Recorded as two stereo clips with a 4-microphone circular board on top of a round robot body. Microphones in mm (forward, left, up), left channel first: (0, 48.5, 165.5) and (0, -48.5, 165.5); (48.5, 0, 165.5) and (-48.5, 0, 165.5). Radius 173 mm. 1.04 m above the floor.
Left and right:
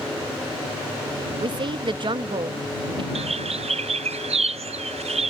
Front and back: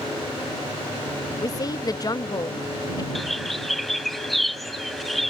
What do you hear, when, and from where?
1.4 s a woman speaking: 50° right
3.1 s a bird: 85° right